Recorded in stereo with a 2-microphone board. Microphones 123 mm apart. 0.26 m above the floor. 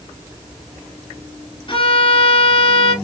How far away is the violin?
About 0.8 m.